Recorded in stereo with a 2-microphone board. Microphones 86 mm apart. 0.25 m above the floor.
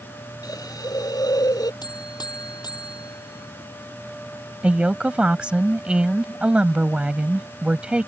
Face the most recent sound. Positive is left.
turn(degrees=-10)  # may be behind; listen again after turning